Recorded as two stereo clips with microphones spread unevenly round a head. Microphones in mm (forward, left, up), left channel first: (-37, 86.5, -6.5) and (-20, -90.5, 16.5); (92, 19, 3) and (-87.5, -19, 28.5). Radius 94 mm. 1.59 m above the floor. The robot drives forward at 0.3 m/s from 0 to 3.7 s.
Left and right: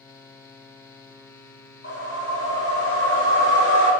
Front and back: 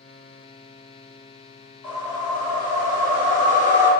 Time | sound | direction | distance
1.8 | a whoosh | 95° left | 1.7 m